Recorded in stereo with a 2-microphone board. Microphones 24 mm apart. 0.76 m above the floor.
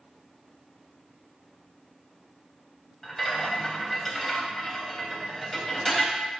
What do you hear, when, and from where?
3.0 s a rattle: centre (ahead or behind), 0.6 m